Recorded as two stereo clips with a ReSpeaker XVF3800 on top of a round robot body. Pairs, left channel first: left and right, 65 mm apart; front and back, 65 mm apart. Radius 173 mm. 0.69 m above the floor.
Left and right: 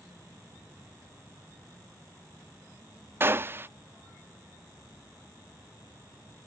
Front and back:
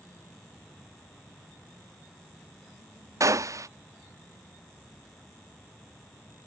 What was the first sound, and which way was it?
A gunshot, 145° right.